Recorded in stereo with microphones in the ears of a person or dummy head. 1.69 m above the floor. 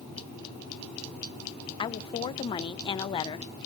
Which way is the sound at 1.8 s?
30° left (ahead or behind).